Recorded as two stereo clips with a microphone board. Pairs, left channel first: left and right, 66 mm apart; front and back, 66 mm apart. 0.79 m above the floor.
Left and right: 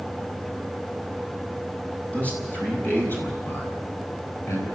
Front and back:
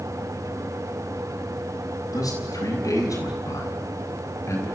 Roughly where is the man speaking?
Ahead.